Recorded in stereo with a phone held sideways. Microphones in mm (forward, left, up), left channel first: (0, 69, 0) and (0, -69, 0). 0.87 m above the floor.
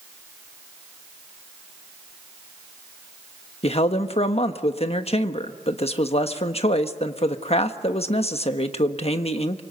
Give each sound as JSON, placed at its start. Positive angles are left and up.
{"t": 3.6, "sound": "a man speaking", "side_deg": 50, "distance_m": 1.2}